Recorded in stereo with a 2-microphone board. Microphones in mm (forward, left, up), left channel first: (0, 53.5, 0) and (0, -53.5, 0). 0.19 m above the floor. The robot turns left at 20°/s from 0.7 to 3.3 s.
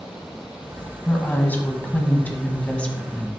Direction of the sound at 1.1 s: 20° left (ahead or behind).